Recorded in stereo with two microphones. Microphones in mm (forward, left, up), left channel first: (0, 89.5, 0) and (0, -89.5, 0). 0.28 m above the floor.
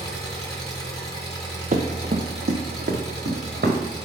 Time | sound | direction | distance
0.0 | an engine running | 20° left (ahead or behind) | 3 m
1.7 | running footsteps | 50° right (ahead or behind) | 1.1 m